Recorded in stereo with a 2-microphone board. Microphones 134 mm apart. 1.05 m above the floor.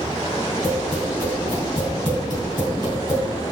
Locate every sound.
0.6 s tapping: 35° right (ahead or behind), 3.5 m